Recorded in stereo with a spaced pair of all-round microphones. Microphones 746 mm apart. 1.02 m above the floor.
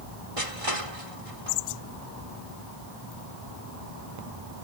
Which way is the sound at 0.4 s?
45° right (ahead or behind).